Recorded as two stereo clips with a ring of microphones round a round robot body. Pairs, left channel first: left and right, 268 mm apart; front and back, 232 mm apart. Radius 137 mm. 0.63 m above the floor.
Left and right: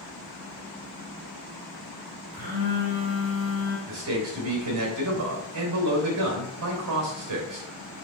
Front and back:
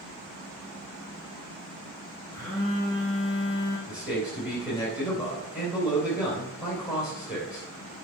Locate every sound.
2.3 s a phone buzzing: 80° right, 4 m
3.9 s a man speaking: 95° right, 3 m